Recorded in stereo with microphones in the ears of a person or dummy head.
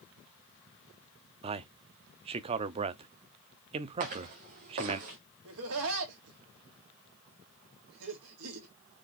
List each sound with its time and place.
1.4 s a man speaking: 30° right (ahead or behind), 0.8 m
4.0 s footsteps: 55° right (ahead or behind), 3.5 m
5.5 s laughter: 80° right, 3 m